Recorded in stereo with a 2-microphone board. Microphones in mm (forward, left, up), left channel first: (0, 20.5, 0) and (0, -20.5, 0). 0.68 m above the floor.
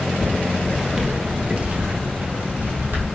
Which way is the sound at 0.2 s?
25° left (ahead or behind).